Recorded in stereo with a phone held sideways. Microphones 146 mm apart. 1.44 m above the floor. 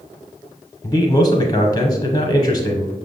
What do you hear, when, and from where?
0.8 s a man speaking: 35° left (ahead or behind), 0.6 m